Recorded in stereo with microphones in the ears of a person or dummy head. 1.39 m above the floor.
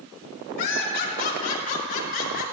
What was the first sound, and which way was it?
Laughter, 50° left (ahead or behind).